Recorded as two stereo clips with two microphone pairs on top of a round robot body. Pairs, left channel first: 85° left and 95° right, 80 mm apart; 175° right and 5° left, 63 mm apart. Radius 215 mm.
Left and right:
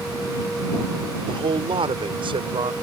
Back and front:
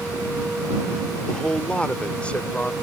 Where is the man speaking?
100° right; by 2.7 s 105° right.